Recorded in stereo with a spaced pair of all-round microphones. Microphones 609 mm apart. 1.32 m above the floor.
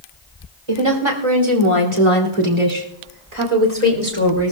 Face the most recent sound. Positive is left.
turn(degrees=-45)  # may be behind; listen again after turning